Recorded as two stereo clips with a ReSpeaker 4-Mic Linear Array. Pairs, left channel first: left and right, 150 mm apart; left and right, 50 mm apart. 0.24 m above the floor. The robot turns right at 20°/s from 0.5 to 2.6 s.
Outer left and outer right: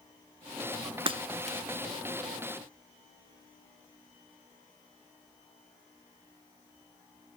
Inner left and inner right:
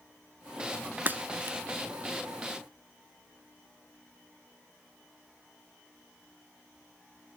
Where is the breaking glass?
35° right (ahead or behind), 0.5 m; by 1.6 s 45° right (ahead or behind), 0.5 m.